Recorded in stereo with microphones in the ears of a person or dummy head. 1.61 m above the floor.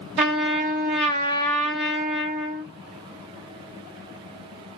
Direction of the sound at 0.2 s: 25° right (ahead or behind).